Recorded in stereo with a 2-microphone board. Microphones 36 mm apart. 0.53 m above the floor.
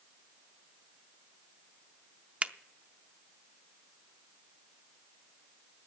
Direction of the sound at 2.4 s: 40° right (ahead or behind).